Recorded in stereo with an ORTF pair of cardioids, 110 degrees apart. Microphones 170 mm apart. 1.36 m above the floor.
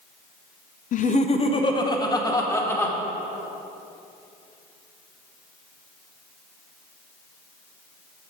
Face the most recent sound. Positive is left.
turn(degrees=15)